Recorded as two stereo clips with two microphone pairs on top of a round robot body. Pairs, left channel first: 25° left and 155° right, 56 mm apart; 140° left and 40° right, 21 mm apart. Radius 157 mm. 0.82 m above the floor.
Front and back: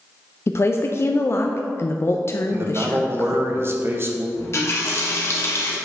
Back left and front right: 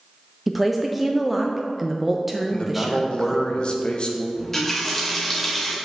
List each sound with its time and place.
0.5 s a woman speaking: 55° left, 0.6 m
2.5 s a man speaking: 160° left, 1.2 m
4.4 s a running tap: 65° left, 1.5 m